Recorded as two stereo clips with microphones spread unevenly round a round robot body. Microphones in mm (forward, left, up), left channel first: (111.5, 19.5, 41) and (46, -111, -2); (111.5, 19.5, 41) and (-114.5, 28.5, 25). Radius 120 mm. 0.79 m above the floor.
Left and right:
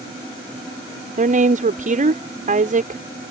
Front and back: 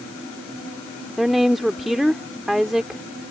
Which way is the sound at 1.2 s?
95° right.